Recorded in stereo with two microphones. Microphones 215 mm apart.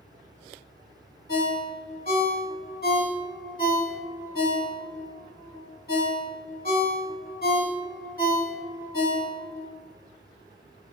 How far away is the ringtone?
About 0.6 m.